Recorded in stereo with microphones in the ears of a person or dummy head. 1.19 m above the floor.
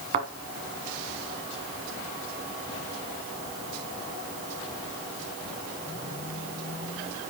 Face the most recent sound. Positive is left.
turn(degrees=-40)  # may be behind; listen again after turning